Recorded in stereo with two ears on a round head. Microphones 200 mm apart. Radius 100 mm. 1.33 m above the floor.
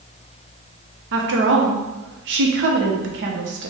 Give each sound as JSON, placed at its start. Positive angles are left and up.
{"t": 1.1, "sound": "a woman speaking", "side_deg": -60, "distance_m": 0.9}